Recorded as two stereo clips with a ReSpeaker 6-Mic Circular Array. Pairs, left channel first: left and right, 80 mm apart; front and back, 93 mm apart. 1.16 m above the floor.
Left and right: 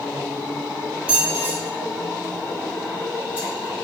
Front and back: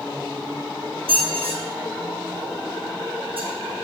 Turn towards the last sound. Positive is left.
turn(degrees=-165)